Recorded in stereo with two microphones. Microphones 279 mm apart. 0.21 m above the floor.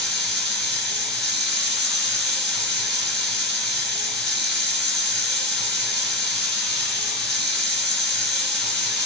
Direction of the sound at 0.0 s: 45° right (ahead or behind).